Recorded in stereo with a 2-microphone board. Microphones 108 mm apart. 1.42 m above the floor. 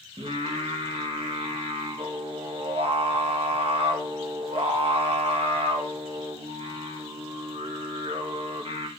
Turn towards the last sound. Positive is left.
turn(degrees=-60)  # may be behind; listen again after turning